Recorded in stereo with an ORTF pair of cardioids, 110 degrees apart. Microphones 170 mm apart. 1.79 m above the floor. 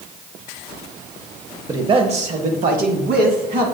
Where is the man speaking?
20° right, 0.8 m; by 3.7 s 70° right, 1.9 m.